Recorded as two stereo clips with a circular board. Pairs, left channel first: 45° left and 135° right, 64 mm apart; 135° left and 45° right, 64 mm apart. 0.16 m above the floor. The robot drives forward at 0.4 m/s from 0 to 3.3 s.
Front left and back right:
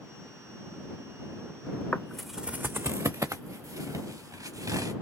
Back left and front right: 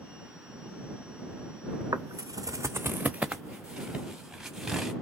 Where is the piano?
I don't hear a piano.